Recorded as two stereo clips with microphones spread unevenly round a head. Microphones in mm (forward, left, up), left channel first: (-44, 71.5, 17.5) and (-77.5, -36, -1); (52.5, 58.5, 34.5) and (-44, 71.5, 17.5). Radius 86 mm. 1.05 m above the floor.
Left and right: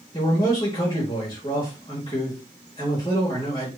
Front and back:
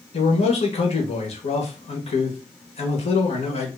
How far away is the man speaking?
About 1.2 m.